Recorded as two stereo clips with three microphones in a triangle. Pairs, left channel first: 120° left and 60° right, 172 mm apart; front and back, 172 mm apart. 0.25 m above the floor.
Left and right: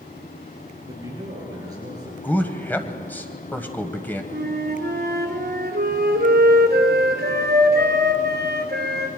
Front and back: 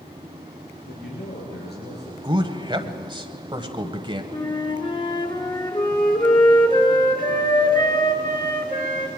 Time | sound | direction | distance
0.9 | a man speaking | 10° left | 4.5 m
2.2 | a man speaking | 175° right | 1.2 m
4.3 | a flute | 65° right | 2 m